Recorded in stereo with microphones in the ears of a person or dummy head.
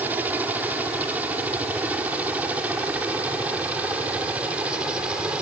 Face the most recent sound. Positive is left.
turn(degrees=-5)  # may be behind; listen again after turning